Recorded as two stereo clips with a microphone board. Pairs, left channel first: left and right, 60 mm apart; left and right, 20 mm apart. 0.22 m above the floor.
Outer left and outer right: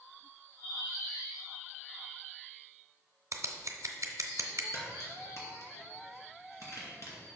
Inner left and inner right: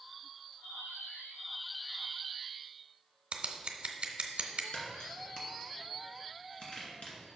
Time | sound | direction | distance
3.3 | scissors | 60° right (ahead or behind) | 0.8 m
4.7 | a crack | 60° left (ahead or behind) | 2 m